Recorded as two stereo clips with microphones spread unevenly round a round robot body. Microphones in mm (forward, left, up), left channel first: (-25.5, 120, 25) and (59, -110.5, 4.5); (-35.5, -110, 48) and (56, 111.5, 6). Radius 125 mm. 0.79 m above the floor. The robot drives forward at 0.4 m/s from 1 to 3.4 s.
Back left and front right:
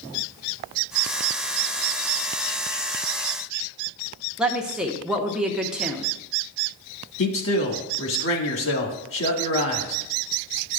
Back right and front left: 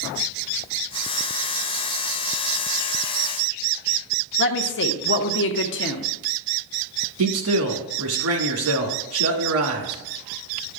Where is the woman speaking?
150° right, 0.6 m.